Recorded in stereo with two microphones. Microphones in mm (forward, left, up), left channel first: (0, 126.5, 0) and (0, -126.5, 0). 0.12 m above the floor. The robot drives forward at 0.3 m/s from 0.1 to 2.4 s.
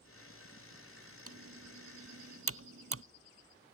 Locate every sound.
1.3 s typing on a keyboard: 65° right (ahead or behind); by 3.0 s 60° right (ahead or behind)